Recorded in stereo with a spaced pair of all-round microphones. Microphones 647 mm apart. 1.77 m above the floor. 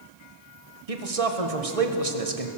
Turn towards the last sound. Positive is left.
turn(degrees=-60)  # may be behind; listen again after turning